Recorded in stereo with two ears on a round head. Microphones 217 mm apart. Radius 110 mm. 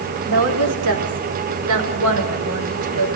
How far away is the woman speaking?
About 4.5 m.